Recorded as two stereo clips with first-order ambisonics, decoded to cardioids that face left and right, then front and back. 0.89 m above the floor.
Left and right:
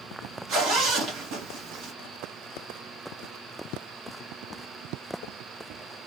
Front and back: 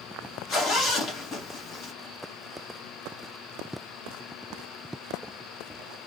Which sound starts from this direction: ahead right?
A zipper, at 0.5 s.